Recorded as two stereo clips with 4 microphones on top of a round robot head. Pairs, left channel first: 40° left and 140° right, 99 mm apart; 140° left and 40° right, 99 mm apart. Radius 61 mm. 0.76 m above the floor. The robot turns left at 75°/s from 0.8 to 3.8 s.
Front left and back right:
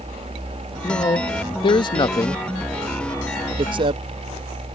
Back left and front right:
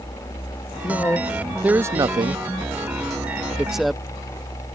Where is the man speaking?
95° left; by 4.0 s 130° right.